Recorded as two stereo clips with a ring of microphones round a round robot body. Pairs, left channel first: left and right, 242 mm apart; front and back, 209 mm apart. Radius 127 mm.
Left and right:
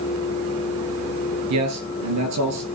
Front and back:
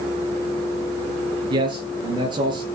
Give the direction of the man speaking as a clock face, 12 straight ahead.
4 o'clock.